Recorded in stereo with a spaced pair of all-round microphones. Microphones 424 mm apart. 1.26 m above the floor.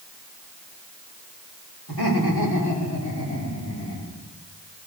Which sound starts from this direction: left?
Laughter, at 1.9 s.